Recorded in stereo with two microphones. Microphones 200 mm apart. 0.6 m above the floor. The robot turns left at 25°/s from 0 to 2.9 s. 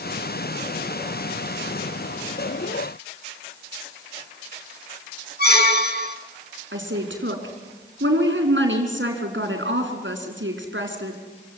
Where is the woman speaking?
70° right (ahead or behind), 5.5 m.